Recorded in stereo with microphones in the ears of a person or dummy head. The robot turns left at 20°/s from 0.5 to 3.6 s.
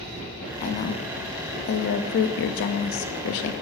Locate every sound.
0.6 s a woman speaking: 135° left, 0.6 m; by 3.5 s 75° left, 0.6 m